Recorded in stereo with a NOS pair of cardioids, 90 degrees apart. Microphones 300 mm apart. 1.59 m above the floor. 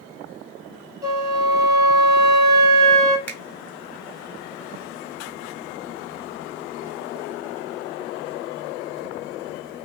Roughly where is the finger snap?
Ahead.